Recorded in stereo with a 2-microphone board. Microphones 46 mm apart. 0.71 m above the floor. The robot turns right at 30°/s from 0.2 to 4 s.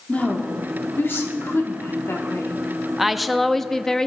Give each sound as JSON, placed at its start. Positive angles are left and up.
{"t": 0.1, "sound": "a woman speaking", "azimuth_deg": 35, "distance_m": 1.5}
{"t": 3.0, "sound": "a woman speaking", "azimuth_deg": -10, "distance_m": 0.5}